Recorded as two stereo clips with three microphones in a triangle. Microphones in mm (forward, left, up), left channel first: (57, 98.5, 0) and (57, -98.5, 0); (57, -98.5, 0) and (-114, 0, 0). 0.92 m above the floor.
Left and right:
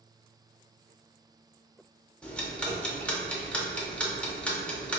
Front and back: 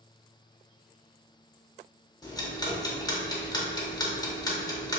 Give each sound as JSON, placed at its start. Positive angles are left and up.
{"t": 2.2, "sound": "ticking", "azimuth_deg": 10, "distance_m": 0.6}